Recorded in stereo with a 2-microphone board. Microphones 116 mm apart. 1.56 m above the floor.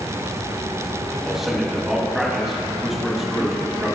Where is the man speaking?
5° right (ahead or behind), 3 m.